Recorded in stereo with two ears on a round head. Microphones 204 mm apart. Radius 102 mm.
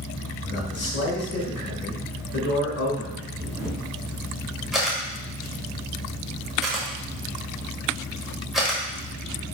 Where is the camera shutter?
Centre (ahead or behind), 1.8 m.